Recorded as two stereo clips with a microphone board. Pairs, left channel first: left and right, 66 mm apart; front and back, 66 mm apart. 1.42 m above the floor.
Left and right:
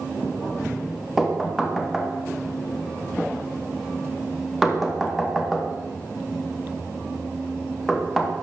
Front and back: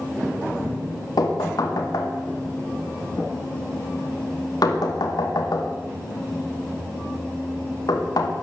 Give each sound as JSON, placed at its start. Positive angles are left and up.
{"t": 1.2, "sound": "knocking", "azimuth_deg": -5, "distance_m": 2.0}